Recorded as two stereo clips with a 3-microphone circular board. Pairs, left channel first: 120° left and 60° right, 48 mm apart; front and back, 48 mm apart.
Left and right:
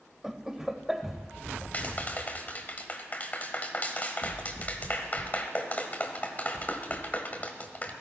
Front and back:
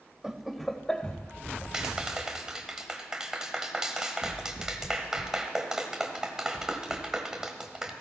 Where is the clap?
115° left, 1.4 m.